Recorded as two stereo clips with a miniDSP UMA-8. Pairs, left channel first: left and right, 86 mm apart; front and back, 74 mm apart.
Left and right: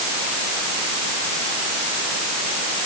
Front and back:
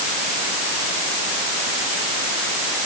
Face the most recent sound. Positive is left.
No sound to turn to.